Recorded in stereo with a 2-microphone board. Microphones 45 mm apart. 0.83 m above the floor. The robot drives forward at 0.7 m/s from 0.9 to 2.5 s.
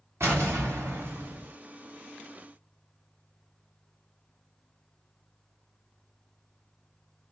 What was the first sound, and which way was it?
An explosion, 65° right (ahead or behind).